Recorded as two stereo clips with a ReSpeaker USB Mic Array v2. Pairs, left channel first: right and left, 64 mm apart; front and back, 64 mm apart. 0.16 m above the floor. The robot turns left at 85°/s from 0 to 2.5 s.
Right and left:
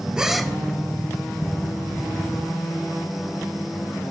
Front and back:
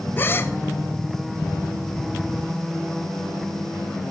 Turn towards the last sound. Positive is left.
turn(degrees=-175)